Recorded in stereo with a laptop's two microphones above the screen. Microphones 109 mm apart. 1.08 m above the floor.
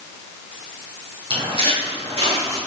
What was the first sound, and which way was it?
Footsteps, 50° right (ahead or behind).